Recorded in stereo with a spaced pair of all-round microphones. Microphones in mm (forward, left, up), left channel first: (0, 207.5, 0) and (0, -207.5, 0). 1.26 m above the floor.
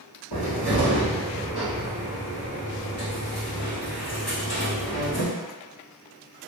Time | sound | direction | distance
0.3 | a cupboard door | 65° left (ahead or behind) | 1.3 m